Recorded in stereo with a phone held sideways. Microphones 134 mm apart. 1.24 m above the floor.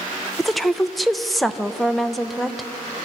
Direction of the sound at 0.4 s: Centre (ahead or behind).